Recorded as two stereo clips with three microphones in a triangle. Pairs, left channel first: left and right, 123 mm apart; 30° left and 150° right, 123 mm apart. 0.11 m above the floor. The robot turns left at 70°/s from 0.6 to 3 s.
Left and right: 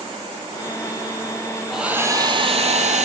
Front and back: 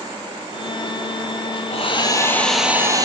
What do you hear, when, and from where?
1.7 s a hair dryer: straight ahead, 0.7 m; by 3.0 s 90° right, 0.7 m